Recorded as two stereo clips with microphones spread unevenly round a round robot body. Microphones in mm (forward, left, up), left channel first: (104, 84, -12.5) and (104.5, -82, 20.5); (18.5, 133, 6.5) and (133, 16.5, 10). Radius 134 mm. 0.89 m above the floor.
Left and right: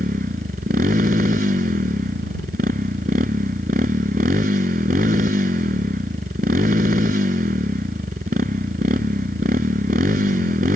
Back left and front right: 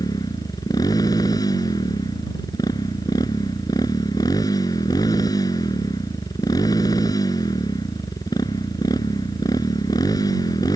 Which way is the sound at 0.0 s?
150° right.